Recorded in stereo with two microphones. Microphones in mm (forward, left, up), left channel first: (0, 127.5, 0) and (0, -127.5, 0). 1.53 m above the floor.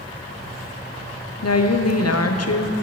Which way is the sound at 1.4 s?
75° left (ahead or behind).